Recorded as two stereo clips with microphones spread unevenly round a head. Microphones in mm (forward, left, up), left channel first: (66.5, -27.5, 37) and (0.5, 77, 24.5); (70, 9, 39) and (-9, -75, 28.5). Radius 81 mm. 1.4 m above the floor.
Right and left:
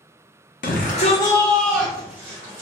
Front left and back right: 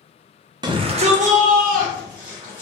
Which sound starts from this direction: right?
A shout, at 0.6 s.